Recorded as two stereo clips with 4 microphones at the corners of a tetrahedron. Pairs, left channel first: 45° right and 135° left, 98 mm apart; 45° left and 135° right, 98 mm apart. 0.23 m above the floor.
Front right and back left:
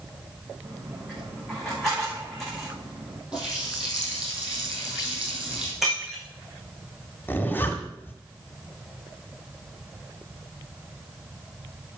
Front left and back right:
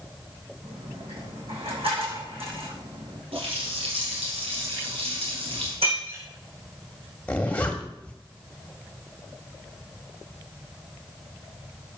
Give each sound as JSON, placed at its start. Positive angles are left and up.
{"t": 0.6, "sound": "a dropped coin", "azimuth_deg": -135, "distance_m": 7.5}
{"t": 3.3, "sound": "a running tap", "azimuth_deg": -145, "distance_m": 5.5}
{"t": 5.8, "sound": "breaking glass", "azimuth_deg": -140, "distance_m": 5.0}
{"t": 7.3, "sound": "a zipper", "azimuth_deg": -10, "distance_m": 1.7}